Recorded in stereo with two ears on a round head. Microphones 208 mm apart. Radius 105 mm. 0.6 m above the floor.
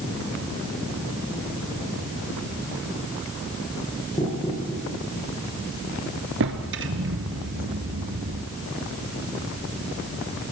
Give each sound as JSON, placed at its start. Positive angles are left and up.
{"t": 4.2, "sound": "knocking", "side_deg": 20, "distance_m": 9.5}
{"t": 6.4, "sound": "a drawer", "side_deg": -60, "distance_m": 2.5}